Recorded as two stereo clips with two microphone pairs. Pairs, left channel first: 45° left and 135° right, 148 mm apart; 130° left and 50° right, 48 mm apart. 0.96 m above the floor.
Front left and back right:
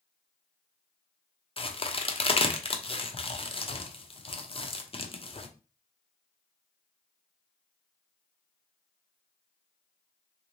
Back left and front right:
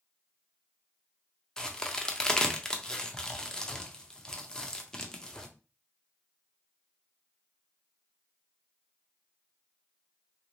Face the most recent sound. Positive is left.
turn(degrees=55)